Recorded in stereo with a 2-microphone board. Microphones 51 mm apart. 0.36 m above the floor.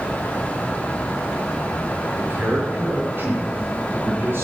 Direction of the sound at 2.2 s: 40° right (ahead or behind).